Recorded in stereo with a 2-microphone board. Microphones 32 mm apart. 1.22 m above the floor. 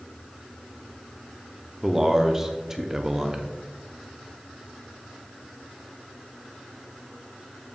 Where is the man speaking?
15° right (ahead or behind), 0.5 m.